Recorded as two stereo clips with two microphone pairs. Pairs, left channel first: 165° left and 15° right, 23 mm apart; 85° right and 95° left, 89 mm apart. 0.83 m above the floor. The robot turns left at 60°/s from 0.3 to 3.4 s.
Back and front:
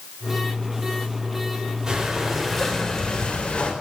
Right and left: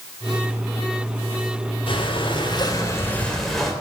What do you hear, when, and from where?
1.9 s breathing: 75° right, 3.5 m; by 3.7 s 170° right, 3.5 m